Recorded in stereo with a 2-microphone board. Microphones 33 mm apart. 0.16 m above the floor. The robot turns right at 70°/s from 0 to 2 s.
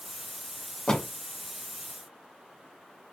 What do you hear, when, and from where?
0.9 s a door slam: 20° left (ahead or behind), 1.3 m; by 1.1 s 25° left (ahead or behind), 1.3 m